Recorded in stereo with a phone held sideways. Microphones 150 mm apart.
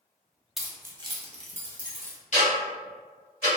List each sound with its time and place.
0.6 s keys jangling: centre (ahead or behind), 0.5 m; by 2.2 s 65° right (ahead or behind), 0.8 m
2.3 s ticking: 50° left (ahead or behind), 1.2 m